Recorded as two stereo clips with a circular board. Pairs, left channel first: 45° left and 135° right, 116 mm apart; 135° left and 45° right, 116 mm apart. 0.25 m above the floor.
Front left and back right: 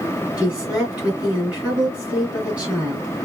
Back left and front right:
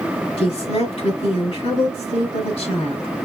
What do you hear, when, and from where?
0.4 s a woman speaking: 145° left, 3.5 m